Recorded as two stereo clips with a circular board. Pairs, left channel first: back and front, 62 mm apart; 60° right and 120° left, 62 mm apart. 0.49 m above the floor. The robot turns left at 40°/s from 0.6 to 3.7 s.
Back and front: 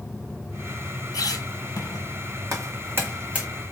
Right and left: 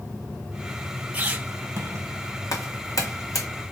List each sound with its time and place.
1.1 s a squeak: 175° right, 1.3 m; by 2.1 s 150° left, 1.3 m
2.5 s footsteps: 35° right, 1.8 m; by 3.5 s 75° right, 1.8 m